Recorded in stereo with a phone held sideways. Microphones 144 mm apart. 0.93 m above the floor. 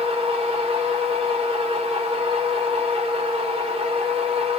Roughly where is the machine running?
Right.